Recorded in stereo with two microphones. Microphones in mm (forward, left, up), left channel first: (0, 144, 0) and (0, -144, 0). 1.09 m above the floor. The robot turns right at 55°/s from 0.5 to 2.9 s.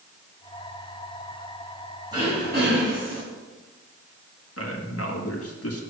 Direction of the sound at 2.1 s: 165° right.